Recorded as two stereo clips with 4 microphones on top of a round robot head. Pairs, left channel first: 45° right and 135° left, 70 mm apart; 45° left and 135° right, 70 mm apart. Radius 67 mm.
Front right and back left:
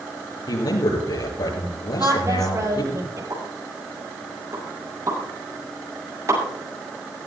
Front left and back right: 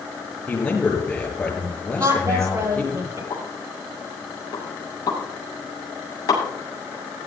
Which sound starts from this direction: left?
A pop, at 3.3 s.